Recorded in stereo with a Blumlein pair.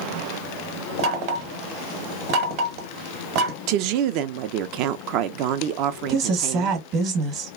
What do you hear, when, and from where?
1.0 s knocking: 40° right, 1.0 m
3.7 s a woman speaking: 40° right, 0.5 m
6.1 s a woman speaking: 35° right, 1.1 m